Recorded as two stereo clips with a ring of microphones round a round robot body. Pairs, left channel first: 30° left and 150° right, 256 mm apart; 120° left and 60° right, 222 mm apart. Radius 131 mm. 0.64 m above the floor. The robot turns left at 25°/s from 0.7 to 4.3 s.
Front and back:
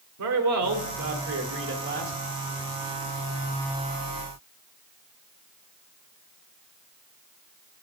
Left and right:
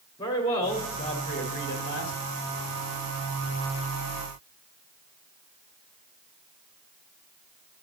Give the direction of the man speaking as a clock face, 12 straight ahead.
6 o'clock.